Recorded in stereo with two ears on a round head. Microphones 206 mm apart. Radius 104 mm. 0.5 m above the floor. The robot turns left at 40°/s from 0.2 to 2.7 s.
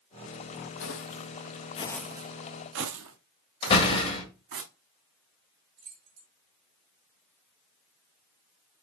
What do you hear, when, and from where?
0.8 s footsteps: 55° left (ahead or behind), 1.1 m; by 4.6 s 65° right (ahead or behind), 2 m
3.6 s a door slam: 25° left (ahead or behind), 1.9 m
5.8 s keys jangling: 50° right (ahead or behind), 3.5 m